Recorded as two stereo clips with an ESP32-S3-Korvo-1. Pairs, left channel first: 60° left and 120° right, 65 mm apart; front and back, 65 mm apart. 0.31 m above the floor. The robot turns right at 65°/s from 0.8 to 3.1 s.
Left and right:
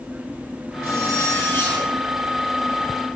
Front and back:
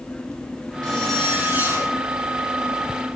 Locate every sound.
0.8 s a zipper: 75° left, 6 m; by 1.9 s 145° left, 6 m